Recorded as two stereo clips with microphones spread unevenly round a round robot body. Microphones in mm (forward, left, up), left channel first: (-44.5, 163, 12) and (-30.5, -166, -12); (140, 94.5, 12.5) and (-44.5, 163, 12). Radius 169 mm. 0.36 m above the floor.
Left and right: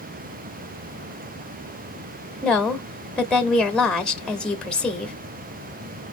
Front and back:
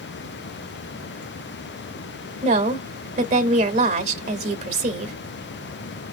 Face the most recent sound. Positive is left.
turn(degrees=-175)